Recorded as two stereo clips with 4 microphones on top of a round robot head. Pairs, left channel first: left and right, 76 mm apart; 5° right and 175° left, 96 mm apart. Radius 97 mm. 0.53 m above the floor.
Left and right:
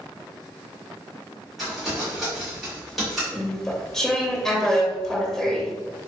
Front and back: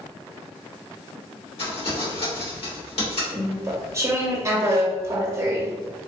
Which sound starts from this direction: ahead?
Crumpling, at 1.6 s.